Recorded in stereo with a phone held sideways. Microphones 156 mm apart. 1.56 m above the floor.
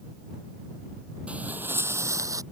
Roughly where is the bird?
I don't hear a bird.